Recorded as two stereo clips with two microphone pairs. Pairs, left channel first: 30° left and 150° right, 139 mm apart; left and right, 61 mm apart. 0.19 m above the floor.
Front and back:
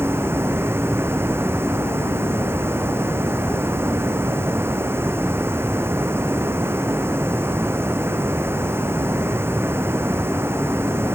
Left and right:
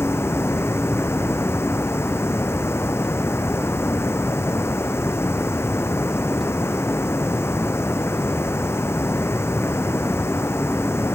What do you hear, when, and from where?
0.0 s running water: 135° left